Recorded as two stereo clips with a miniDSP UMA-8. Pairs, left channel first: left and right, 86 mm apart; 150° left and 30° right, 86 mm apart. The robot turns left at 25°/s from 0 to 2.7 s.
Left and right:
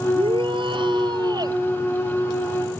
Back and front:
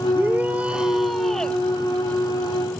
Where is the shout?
95° right; by 1.6 s 130° right.